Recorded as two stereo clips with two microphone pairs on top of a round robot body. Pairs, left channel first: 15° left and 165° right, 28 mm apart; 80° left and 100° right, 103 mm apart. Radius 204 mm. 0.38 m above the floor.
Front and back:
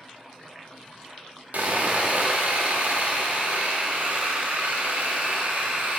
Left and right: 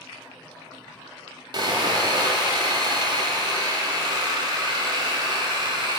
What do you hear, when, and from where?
1.5 s sawing: 145° right, 1.0 m